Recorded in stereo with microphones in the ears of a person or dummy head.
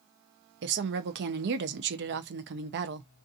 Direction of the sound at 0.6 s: 55° right (ahead or behind).